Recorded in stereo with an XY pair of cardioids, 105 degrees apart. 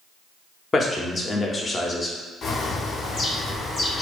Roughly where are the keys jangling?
No keys jangling in this recording.